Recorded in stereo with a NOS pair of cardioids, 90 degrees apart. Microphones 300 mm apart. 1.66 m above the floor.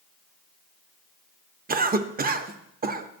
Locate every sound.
1.7 s a cough: 30° right, 0.7 m